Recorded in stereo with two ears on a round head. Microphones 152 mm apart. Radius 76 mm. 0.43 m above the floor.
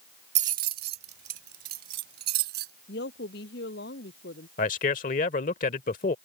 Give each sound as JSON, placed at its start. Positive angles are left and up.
{"t": 0.3, "sound": "keys jangling", "side_deg": -40}
{"t": 2.9, "sound": "a woman speaking", "side_deg": 70}
{"t": 4.6, "sound": "a man speaking", "side_deg": 50}